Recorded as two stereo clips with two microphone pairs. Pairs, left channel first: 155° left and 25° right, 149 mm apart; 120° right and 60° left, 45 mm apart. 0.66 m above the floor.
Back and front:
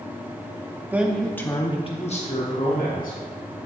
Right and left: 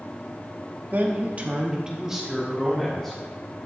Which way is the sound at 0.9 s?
45° left.